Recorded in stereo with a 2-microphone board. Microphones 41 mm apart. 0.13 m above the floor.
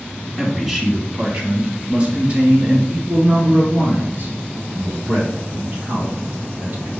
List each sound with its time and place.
0.4 s a man speaking: 5° right (ahead or behind), 1.8 m; by 6.9 s 55° right (ahead or behind), 4 m